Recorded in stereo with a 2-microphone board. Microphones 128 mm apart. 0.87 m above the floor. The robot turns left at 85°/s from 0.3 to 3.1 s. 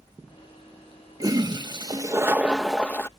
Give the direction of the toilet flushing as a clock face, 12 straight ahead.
2 o'clock.